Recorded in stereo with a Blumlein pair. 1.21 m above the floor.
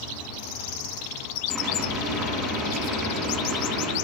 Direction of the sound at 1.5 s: 20° right.